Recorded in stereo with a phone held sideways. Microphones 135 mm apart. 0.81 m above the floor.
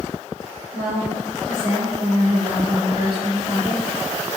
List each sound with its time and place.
0.7 s a woman speaking: 35° left (ahead or behind), 1.0 m